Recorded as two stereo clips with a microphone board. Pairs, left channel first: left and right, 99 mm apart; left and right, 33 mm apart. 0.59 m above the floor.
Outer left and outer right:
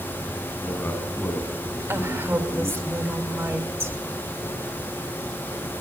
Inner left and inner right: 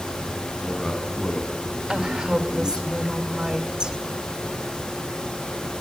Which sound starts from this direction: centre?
A man speaking, at 0.5 s.